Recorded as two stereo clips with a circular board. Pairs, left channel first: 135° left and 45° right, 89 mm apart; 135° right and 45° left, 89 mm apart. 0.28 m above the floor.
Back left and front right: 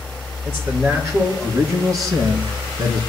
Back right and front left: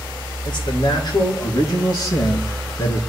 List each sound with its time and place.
0.5 s a man speaking: 110° right, 4.5 m; by 3.0 s 80° right, 3.5 m